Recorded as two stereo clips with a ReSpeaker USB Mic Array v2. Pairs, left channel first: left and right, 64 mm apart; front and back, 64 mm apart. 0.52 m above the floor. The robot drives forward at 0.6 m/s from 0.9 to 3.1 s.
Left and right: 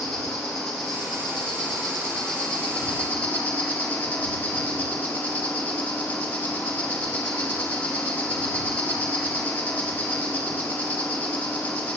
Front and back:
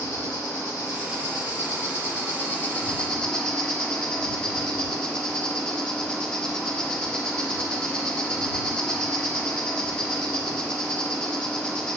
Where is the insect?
10° left, 1.7 m; by 12.0 s 55° left, 0.9 m.